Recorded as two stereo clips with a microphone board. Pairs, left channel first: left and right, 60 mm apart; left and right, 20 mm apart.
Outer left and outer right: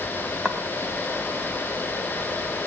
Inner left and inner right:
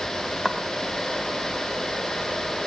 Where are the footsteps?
15° right (ahead or behind), 3 m.